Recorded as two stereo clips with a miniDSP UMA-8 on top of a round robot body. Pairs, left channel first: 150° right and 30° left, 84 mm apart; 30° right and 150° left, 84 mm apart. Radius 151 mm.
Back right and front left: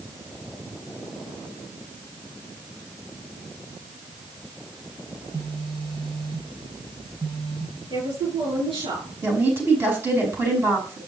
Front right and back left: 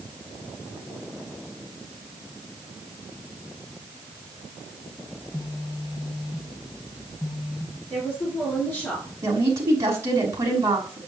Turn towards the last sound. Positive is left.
turn(degrees=95)